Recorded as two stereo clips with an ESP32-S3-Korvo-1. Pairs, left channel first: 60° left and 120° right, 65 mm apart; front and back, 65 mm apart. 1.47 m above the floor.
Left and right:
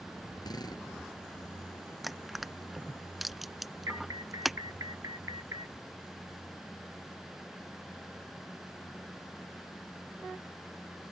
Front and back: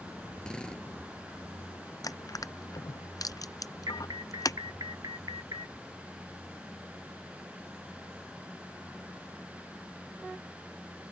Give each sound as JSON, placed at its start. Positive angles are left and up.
{"t": 0.4, "sound": "a drill", "azimuth_deg": 80}
{"t": 2.0, "sound": "crushing", "azimuth_deg": -30}
{"t": 3.9, "sound": "an alarm", "azimuth_deg": -160}